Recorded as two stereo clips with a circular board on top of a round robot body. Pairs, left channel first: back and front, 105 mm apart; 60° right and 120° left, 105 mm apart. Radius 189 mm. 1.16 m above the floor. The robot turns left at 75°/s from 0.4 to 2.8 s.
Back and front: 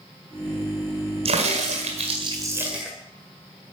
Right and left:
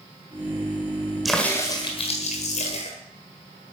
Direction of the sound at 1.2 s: 30° left.